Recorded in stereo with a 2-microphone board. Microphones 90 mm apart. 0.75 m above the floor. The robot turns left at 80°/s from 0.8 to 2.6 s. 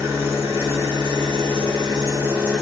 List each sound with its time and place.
0.0 s an engine running: 35° right, 1.1 m; by 2.6 s 175° right, 1.1 m